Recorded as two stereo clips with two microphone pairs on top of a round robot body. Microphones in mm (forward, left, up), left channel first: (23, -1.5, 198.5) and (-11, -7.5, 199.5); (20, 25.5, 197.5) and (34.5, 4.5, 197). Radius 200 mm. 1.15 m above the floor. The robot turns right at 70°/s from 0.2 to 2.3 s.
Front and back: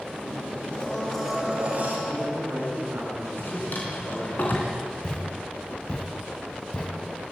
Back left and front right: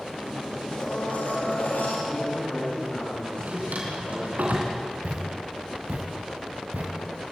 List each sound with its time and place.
0.7 s a blender: 60° left, 4.5 m; by 2.0 s 150° left, 4.5 m
2.1 s a man speaking: 160° left, 7 m; by 4.4 s 175° left, 7 m
3.4 s a drawer: 30° right, 3 m
5.0 s a thud: 55° right, 2.5 m